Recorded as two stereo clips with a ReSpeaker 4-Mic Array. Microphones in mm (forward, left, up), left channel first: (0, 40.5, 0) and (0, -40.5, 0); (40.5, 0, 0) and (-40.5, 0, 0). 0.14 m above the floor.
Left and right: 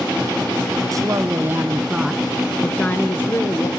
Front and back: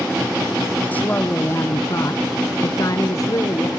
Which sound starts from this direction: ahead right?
A woman speaking, at 0.9 s.